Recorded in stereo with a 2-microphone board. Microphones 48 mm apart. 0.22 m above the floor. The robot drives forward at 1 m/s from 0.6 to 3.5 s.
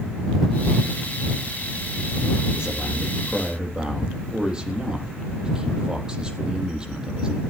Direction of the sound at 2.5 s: 20° right (ahead or behind).